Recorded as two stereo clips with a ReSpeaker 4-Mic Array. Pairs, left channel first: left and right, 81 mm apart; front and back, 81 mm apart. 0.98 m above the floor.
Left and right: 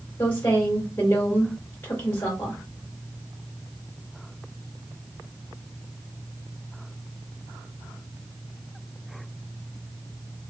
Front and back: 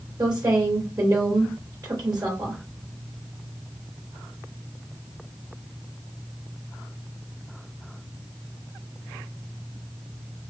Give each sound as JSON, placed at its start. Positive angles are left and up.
{"t": 0.2, "sound": "a woman speaking", "azimuth_deg": 160, "distance_m": 3.0}